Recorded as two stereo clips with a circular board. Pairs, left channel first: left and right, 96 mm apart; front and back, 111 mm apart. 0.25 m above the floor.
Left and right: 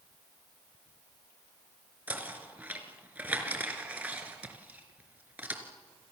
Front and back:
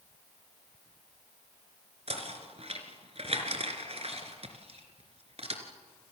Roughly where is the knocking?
Behind.